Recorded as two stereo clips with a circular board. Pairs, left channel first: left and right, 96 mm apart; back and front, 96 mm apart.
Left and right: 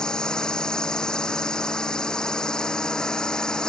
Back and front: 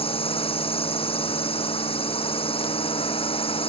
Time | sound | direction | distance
0.0 | a drone | 175° left | ?